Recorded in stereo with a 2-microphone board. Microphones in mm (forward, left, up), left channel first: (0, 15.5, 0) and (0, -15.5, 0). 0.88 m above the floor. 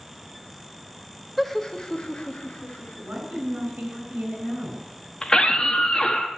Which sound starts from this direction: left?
A scream, at 5.2 s.